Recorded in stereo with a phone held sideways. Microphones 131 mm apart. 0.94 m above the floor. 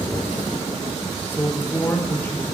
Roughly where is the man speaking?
Centre.